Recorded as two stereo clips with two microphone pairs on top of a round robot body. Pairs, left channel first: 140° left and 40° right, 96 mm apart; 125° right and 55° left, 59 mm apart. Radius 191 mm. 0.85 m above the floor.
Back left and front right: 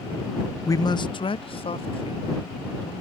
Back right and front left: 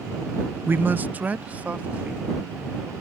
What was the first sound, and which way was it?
A man speaking, 85° left.